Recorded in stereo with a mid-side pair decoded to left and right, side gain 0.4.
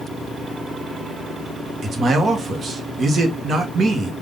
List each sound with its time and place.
1.8 s a man speaking: 50° right, 1.3 m